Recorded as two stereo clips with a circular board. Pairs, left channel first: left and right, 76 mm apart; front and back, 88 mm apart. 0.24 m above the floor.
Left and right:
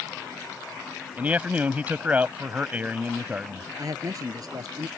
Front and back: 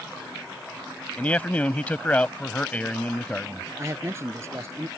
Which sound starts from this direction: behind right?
A man speaking, at 3.8 s.